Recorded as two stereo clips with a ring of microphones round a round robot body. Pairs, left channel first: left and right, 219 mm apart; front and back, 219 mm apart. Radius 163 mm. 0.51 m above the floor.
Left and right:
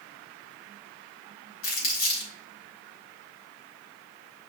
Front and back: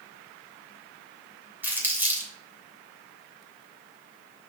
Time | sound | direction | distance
1.6 | crumpling | 100° left | 3 m